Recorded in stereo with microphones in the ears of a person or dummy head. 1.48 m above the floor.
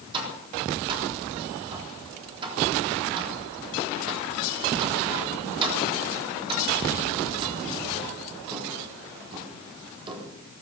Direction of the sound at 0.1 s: 30° right (ahead or behind).